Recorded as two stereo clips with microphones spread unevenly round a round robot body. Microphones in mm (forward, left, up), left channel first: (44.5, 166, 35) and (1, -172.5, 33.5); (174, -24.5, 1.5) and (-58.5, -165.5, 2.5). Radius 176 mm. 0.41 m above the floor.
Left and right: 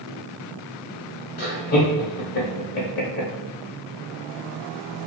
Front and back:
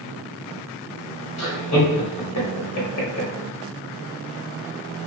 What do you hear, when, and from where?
1.4 s laughter: 30° left, 1.0 m